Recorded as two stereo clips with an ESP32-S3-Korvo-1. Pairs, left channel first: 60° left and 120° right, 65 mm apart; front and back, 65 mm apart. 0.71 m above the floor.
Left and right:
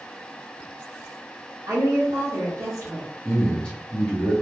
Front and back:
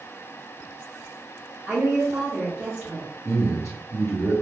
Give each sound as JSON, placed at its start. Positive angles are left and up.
{"t": 1.7, "sound": "a woman speaking", "azimuth_deg": -85, "distance_m": 1.5}
{"t": 3.2, "sound": "a man speaking", "azimuth_deg": -10, "distance_m": 1.5}